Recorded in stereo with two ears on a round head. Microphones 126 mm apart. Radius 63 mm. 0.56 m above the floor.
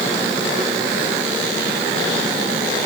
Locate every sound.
Only background noise.